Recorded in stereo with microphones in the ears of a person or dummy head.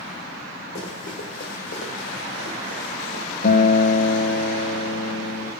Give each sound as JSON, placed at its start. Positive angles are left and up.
{"t": 0.8, "sound": "running footsteps", "side_deg": 50, "distance_m": 3.5}
{"t": 3.4, "sound": "a guitar", "side_deg": 60, "distance_m": 1.5}